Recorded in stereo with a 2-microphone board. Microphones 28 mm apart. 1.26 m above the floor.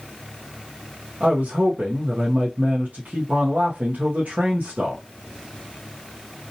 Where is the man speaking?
85° right, 0.6 m.